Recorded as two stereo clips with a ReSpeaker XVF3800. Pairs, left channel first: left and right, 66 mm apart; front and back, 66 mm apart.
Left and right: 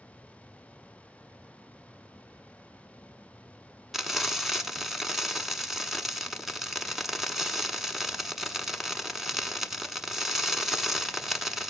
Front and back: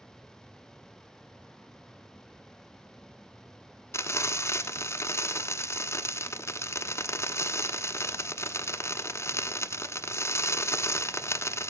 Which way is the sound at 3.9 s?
5° right.